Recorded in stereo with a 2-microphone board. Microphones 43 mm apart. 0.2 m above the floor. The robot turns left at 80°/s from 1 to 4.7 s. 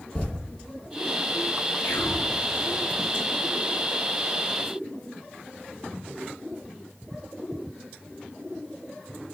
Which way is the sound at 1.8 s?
95° left.